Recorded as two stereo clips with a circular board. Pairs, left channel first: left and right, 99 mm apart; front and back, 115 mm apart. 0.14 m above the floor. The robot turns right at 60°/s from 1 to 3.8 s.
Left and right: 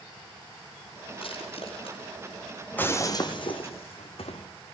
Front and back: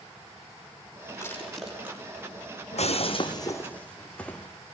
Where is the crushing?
60° left, 7 m; by 2.0 s 110° left, 7 m.